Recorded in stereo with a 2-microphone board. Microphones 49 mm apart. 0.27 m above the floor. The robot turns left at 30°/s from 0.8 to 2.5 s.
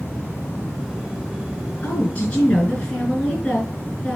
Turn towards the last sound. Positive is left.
turn(degrees=20)  # may be behind; listen again after turning